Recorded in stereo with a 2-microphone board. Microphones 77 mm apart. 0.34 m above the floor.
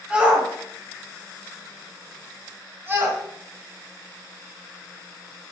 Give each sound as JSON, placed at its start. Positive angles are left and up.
{"t": 0.1, "sound": "a shout", "side_deg": -15, "distance_m": 2.0}